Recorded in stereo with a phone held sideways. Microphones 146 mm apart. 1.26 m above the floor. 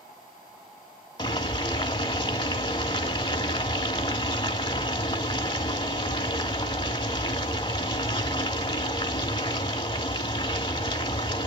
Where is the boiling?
35° left (ahead or behind), 1.3 m.